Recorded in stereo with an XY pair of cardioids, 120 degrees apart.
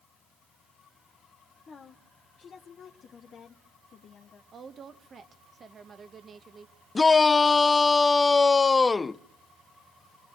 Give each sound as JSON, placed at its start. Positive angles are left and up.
{"t": 1.7, "sound": "a woman speaking", "azimuth_deg": 35, "distance_m": 1.1}
{"t": 4.5, "sound": "a woman speaking", "azimuth_deg": -35, "distance_m": 1.4}
{"t": 7.0, "sound": "a shout", "azimuth_deg": 25, "distance_m": 0.6}